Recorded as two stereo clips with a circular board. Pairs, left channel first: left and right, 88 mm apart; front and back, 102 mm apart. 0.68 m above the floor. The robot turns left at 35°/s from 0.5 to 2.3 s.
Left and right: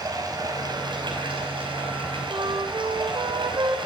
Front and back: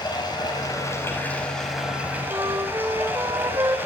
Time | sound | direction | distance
0.0 | running water | 45° right | 4.5 m
2.3 | a flute | 125° right | 1.9 m